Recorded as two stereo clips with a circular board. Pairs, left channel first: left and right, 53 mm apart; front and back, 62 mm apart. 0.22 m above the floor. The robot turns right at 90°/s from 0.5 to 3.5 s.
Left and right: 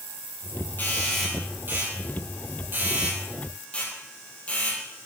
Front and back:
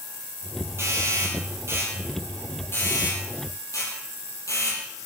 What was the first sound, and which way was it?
A doorbell, 140° left.